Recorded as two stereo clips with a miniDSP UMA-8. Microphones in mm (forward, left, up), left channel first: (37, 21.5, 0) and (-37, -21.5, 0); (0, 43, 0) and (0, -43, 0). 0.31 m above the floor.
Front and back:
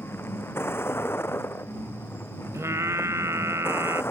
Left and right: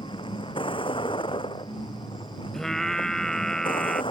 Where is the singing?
175° left.